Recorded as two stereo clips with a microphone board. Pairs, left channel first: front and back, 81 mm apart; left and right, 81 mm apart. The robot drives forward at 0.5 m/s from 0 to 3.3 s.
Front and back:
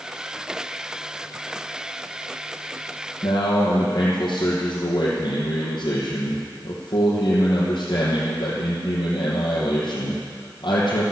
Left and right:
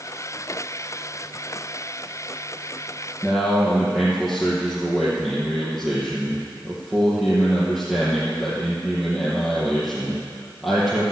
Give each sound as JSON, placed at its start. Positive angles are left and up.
{"t": 3.2, "sound": "a man speaking", "azimuth_deg": -10, "distance_m": 3.0}